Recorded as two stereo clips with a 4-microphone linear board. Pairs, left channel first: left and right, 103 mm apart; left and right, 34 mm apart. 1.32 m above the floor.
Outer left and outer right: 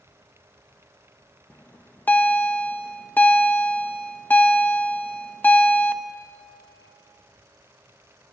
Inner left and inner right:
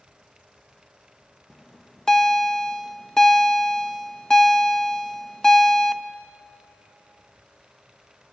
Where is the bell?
20° left (ahead or behind), 0.7 m.